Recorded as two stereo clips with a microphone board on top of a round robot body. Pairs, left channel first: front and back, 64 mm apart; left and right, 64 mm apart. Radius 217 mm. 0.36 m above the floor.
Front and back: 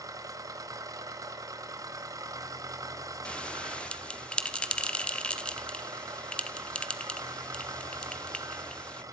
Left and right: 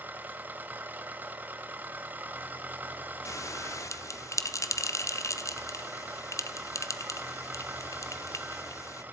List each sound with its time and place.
0.0 s an engine running: 150° right, 1.8 m
3.2 s a bell: 70° left, 1.6 m